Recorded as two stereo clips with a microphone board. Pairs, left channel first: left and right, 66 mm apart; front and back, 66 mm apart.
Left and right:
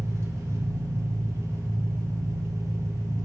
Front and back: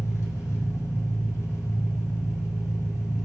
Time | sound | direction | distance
0.0 | an engine running | 45° right | 3 m